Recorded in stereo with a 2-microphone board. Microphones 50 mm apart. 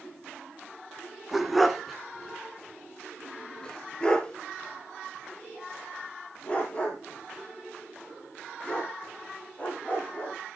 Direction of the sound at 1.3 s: 5° right (ahead or behind).